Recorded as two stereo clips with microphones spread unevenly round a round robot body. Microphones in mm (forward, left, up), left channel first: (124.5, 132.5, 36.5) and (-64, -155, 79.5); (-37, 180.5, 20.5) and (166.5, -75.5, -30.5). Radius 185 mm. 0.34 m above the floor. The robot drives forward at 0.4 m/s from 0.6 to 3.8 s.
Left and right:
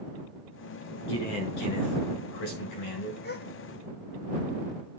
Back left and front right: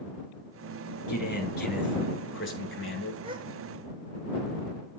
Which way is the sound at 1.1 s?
65° left.